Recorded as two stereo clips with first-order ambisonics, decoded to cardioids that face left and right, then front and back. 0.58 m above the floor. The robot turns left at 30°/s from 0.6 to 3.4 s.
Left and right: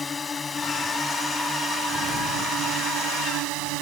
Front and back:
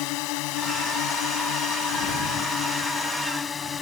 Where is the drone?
15° left; by 3.8 s 70° right.